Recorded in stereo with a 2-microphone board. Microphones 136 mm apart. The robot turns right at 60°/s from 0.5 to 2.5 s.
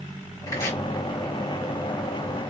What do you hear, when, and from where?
0.5 s chopping: 25° left (ahead or behind), 1.4 m; by 0.8 s 10° left (ahead or behind), 1.4 m